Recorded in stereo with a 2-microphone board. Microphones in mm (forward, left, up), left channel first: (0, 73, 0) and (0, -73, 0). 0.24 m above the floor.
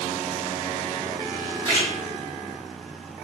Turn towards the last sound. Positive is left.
turn(degrees=-30)  # may be behind; listen again after turning